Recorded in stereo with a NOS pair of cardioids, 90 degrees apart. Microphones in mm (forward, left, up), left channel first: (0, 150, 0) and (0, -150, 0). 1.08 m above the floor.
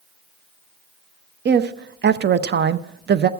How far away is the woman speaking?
About 0.7 m.